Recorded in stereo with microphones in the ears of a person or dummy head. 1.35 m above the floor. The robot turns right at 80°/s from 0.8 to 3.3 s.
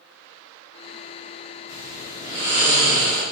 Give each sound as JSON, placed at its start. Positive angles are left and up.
{"t": 1.7, "sound": "snoring", "azimuth_deg": 160, "distance_m": 1.7}